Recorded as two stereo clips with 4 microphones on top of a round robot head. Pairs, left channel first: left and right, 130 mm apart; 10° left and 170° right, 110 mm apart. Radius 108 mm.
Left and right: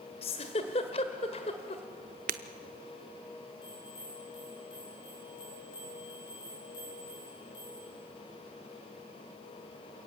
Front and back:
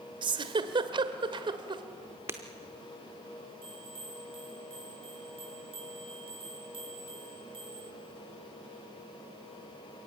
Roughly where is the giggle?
Behind left.